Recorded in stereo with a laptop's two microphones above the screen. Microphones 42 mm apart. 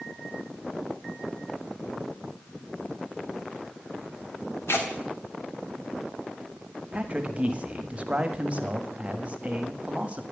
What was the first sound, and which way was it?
Tearing paper, 80° left.